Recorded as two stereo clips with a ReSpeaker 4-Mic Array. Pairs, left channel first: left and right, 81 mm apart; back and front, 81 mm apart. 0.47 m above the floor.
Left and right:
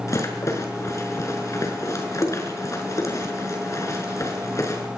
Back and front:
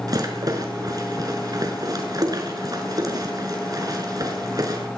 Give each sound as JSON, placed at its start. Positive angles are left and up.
{"t": 0.1, "sound": "a rattle", "azimuth_deg": 40, "distance_m": 6.0}